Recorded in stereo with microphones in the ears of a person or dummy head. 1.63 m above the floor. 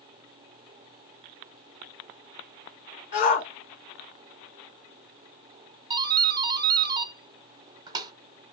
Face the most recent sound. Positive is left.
turn(degrees=-15)  # may be behind; listen again after turning